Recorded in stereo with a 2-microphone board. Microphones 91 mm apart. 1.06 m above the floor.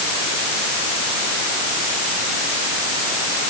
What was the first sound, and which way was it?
Only background noise.